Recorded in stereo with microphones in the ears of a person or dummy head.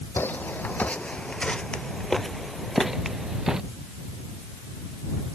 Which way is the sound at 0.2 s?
5° left (ahead or behind).